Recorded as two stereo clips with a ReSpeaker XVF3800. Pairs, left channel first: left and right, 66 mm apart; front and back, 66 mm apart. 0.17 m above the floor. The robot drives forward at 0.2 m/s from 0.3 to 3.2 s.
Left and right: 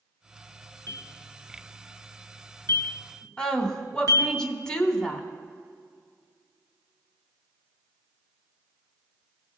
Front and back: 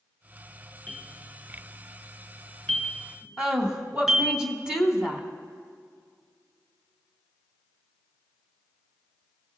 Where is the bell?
70° left, 1.7 m; by 4.4 s 90° left, 1.7 m.